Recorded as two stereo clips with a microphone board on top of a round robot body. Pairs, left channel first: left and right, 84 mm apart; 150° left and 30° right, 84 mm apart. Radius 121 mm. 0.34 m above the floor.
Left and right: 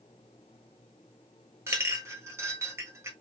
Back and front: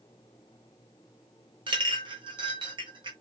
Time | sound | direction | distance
1.7 | a clink | 35° right | 1.3 m